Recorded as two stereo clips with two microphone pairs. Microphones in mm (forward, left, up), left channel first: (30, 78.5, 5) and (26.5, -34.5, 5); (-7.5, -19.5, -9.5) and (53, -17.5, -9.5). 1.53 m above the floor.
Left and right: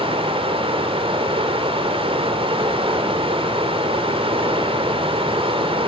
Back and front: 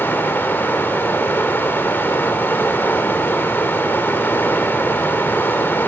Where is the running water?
125° right, 2.5 m.